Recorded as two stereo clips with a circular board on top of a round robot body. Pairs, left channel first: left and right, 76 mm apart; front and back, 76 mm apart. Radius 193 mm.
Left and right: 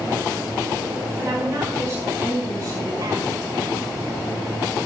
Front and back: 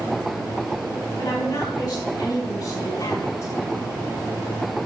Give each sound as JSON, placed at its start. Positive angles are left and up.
{"t": 1.2, "sound": "a woman speaking", "azimuth_deg": -35, "distance_m": 6.5}